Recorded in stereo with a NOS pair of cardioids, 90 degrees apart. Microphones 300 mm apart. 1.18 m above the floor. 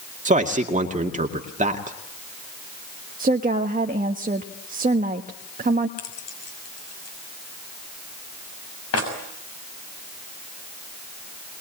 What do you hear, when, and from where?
0.2 s a man speaking: 25° right, 2 m
3.2 s a woman speaking: 30° right, 1.4 m
6.0 s keys jangling: 50° left, 6.5 m